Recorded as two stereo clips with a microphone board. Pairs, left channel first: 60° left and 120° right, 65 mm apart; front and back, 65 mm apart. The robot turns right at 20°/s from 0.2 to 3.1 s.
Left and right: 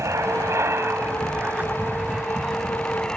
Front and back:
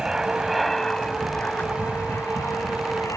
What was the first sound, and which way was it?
An aircraft, 105° right.